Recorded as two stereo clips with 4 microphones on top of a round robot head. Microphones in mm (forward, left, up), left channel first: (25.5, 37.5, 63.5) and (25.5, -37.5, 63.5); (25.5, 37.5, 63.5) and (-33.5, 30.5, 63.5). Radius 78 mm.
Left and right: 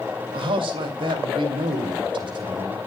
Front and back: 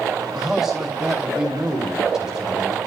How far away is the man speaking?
About 2 m.